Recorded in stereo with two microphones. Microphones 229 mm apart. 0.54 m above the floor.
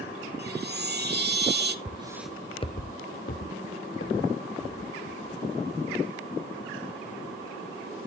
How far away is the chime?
About 0.7 m.